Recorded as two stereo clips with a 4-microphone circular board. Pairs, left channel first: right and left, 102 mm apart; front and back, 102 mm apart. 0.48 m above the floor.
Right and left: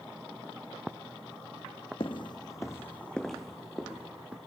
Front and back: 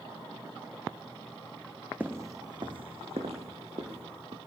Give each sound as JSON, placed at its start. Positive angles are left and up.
{"t": 2.0, "sound": "footsteps", "azimuth_deg": -110, "distance_m": 1.1}